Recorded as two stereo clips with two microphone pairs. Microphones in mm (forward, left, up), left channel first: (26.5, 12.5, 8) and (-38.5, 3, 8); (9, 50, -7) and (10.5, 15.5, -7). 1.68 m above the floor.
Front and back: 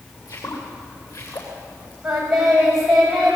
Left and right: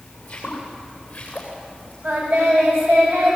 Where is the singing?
90° right, 9.5 m.